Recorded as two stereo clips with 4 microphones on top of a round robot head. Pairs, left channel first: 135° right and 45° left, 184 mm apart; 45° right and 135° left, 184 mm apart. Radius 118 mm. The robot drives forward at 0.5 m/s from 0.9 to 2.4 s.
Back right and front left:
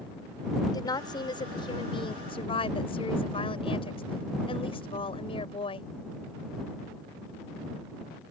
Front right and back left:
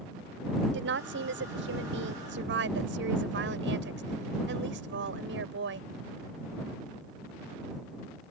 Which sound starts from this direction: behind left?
A woman speaking, at 0.7 s.